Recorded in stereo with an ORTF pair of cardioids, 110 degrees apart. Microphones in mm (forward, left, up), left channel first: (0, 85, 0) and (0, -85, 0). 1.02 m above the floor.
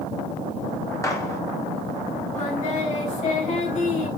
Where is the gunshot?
20° left, 3.5 m.